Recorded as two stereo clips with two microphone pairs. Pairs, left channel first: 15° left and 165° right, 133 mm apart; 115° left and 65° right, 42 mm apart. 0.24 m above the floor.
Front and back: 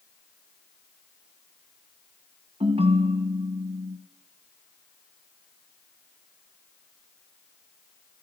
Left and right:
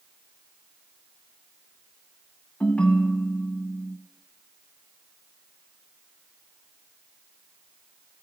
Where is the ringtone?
170° left, 1.5 m.